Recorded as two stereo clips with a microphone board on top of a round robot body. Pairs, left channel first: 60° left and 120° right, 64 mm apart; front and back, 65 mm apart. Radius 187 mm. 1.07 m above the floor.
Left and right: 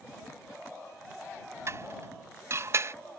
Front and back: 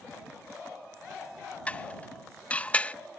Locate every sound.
1.7 s dishes clattering: 70° right